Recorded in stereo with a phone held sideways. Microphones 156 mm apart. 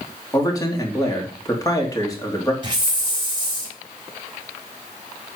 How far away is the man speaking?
About 3.5 m.